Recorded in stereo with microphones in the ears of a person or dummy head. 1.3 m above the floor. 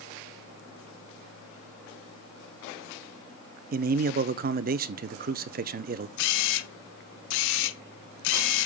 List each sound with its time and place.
3.7 s a man speaking: 45° right (ahead or behind), 0.5 m
6.2 s a camera shutter: 75° left (ahead or behind), 1.0 m